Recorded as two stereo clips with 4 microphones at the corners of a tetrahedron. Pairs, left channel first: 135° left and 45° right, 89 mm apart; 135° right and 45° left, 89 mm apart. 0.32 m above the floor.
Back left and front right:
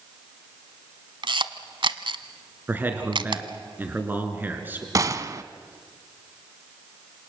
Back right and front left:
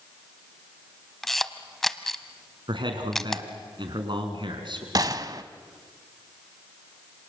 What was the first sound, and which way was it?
A camera shutter, 45° right.